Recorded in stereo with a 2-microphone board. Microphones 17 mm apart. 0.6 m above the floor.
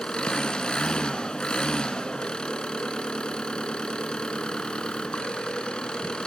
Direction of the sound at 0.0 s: 60° left (ahead or behind).